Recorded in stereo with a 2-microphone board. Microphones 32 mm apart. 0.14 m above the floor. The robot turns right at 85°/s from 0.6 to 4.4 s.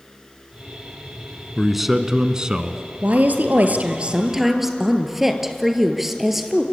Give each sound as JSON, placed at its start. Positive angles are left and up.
{"t": 1.6, "sound": "a man speaking", "side_deg": 0, "distance_m": 1.4}
{"t": 3.0, "sound": "a woman speaking", "azimuth_deg": -125, "distance_m": 2.5}